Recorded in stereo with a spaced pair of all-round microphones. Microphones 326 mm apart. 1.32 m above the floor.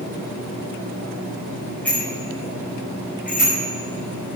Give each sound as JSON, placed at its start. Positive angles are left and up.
{"t": 1.9, "sound": "a bicycle bell", "side_deg": 5, "distance_m": 5.0}